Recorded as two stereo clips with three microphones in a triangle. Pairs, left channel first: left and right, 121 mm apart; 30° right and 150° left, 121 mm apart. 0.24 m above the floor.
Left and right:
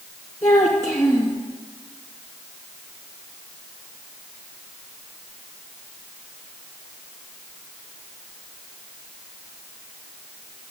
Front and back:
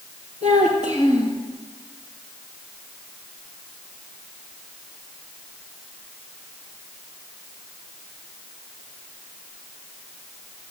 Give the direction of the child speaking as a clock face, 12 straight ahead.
11 o'clock.